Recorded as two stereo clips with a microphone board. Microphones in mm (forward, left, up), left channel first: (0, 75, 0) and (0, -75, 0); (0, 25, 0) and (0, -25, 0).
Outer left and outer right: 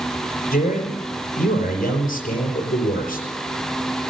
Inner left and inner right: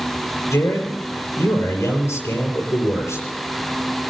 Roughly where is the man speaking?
Left.